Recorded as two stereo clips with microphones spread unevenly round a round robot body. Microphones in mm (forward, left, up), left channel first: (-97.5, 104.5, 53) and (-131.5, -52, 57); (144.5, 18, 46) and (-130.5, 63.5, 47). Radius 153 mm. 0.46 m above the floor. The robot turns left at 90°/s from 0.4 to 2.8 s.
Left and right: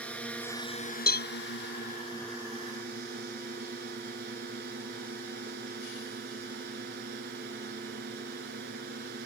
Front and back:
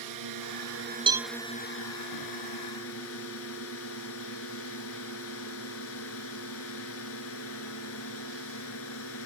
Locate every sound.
0.0 s a drone: 160° left; by 9.3 s 55° right
1.1 s a cowbell: 100° left; by 1.3 s 80° left